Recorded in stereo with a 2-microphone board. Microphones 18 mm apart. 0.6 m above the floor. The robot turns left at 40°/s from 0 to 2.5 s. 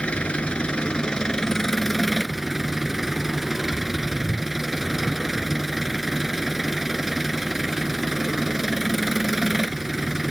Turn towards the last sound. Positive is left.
turn(degrees=-10)